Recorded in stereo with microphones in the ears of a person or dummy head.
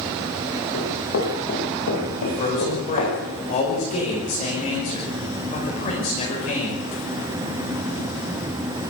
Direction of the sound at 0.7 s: 80° left.